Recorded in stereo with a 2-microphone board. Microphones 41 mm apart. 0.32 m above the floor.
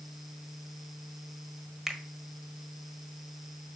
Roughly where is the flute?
No flute in this recording.